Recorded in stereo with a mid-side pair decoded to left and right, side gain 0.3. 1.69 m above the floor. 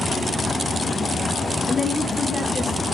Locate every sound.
1.7 s a woman speaking: 60° left, 1.1 m